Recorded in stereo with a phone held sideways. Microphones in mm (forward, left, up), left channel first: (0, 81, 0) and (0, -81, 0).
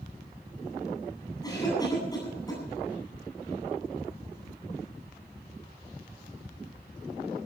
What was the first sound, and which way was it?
A cough, 20° left (ahead or behind).